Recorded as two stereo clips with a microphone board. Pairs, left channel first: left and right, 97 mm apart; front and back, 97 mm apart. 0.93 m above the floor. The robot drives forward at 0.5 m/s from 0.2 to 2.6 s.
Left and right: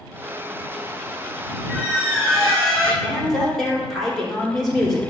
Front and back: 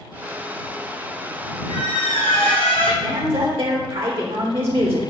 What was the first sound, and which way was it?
A squeak, 10° left.